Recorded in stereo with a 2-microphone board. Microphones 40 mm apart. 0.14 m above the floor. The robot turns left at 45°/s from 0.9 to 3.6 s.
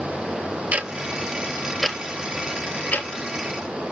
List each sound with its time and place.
0.7 s ticking: 35° right (ahead or behind), 0.7 m; by 3.9 s 70° left (ahead or behind), 0.7 m